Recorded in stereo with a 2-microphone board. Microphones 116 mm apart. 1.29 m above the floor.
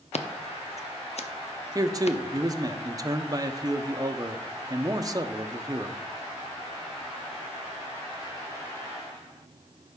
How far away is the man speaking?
About 0.6 m.